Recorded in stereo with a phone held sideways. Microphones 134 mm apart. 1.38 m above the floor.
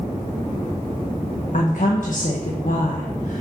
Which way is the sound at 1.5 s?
85° left.